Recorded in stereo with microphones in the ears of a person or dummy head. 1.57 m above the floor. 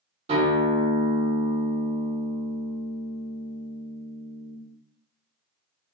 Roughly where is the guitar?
Right.